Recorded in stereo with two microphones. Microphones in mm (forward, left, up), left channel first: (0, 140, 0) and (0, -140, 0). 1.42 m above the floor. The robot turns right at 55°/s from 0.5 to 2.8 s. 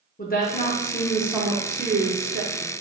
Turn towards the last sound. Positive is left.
turn(degrees=-90)